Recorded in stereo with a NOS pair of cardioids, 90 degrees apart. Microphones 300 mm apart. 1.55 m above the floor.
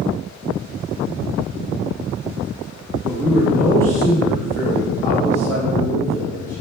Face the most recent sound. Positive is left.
turn(degrees=10)